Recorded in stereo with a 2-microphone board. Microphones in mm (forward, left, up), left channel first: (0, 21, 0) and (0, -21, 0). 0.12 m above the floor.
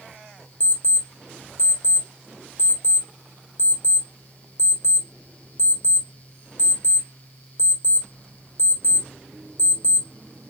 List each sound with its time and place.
0.6 s an alarm clock: 45° left (ahead or behind), 2 m